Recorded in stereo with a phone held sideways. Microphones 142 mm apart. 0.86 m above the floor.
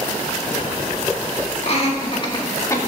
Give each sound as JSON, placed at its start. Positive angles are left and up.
{"t": 1.6, "sound": "laughter", "side_deg": 50, "distance_m": 1.9}